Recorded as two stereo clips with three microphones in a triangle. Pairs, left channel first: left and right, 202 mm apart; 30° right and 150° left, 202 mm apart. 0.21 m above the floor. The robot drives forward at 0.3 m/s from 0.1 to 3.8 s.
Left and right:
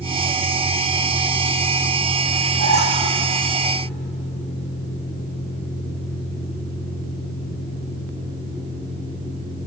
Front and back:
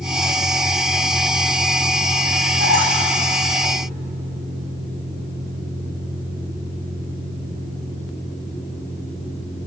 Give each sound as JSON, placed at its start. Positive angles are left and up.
{"t": 2.6, "sound": "a squeak", "azimuth_deg": 145, "distance_m": 7.5}